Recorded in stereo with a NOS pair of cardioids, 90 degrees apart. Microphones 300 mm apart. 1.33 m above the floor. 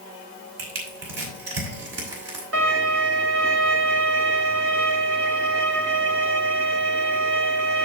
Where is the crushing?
55° right, 5.5 m.